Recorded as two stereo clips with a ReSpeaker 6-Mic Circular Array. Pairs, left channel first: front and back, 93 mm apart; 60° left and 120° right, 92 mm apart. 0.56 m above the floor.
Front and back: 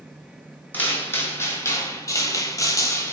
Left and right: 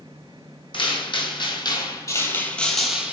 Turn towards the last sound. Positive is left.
turn(degrees=-45)